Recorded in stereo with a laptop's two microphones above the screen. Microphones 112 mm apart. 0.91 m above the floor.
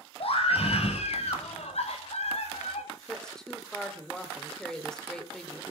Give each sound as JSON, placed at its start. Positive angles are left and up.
{"t": 0.2, "sound": "a scream", "side_deg": 65, "distance_m": 5.0}
{"t": 3.1, "sound": "a woman speaking", "side_deg": 5, "distance_m": 3.0}